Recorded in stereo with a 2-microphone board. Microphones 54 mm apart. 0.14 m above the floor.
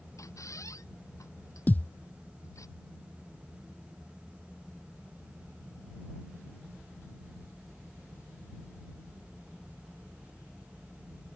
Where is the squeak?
80° left.